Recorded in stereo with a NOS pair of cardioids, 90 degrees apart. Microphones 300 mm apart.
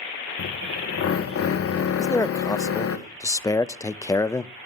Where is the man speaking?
10° left, 0.6 m.